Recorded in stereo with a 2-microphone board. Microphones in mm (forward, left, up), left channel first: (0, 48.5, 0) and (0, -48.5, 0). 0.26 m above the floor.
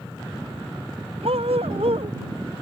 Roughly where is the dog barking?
Right.